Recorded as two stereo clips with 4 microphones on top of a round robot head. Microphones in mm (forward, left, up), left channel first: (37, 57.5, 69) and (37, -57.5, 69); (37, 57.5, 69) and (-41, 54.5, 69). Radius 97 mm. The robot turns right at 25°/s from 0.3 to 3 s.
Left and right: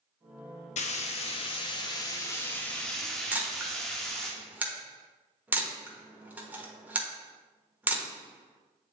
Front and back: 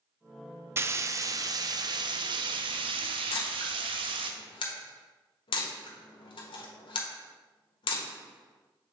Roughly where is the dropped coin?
No dropped coin in this recording.